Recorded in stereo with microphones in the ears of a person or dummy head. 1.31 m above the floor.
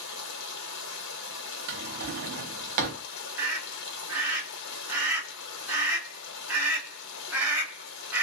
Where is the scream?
10° right (ahead or behind), 1.4 m.